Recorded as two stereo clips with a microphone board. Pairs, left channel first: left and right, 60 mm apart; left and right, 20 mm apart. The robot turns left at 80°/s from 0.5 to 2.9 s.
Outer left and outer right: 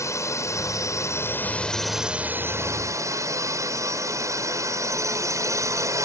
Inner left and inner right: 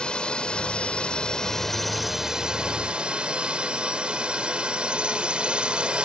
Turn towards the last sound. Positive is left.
turn(degrees=-80)